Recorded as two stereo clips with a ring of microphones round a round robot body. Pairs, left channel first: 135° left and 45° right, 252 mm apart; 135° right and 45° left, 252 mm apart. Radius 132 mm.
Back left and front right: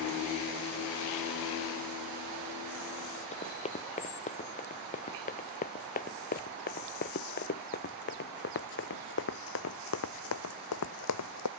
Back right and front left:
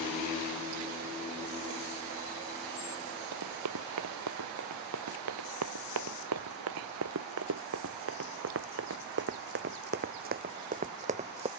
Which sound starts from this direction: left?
Running footsteps, at 3.3 s.